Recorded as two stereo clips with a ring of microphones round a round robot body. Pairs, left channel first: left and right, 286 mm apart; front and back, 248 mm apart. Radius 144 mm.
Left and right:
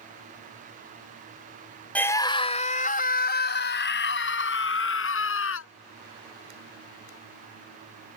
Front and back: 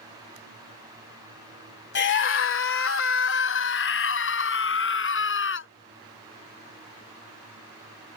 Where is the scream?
5° left; by 5.7 s 40° left.